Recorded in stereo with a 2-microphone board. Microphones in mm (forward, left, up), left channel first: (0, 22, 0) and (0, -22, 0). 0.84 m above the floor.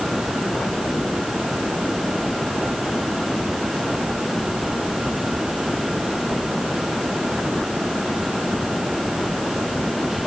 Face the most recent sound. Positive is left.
No sound to turn to.